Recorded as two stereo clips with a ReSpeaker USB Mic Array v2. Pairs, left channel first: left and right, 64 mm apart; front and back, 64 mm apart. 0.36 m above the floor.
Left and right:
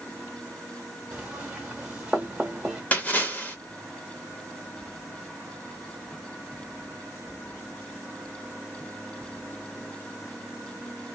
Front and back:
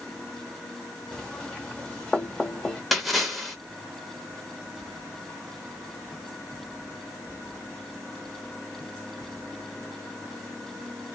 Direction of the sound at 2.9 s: 90° left.